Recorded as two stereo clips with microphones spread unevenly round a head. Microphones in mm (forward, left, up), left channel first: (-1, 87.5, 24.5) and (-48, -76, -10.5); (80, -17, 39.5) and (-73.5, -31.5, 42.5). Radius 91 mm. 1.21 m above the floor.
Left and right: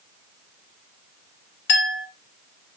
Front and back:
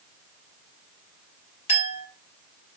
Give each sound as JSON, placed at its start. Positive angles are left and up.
{"t": 1.7, "sound": "a clink", "azimuth_deg": 60, "distance_m": 2.5}